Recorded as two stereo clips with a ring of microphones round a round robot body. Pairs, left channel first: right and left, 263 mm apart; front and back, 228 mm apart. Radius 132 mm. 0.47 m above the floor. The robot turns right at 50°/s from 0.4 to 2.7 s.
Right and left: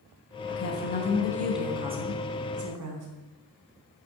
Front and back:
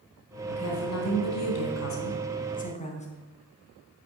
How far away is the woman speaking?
About 3.5 m.